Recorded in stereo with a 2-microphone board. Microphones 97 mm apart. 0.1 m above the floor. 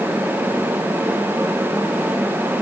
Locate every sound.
Only background noise.